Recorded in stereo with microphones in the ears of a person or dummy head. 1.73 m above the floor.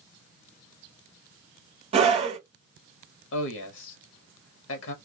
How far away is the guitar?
No guitar in this recording.